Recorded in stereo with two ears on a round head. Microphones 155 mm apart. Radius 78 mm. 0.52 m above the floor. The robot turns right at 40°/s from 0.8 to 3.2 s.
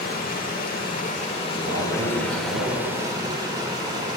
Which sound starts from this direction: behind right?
A man speaking, at 1.6 s.